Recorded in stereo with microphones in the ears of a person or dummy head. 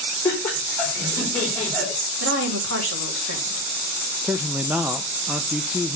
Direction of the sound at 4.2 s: 5° right (ahead or behind).